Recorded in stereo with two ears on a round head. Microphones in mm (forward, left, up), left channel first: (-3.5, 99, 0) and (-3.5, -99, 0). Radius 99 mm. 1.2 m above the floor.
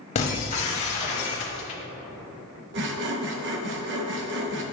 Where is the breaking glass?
30° left (ahead or behind), 1.1 m.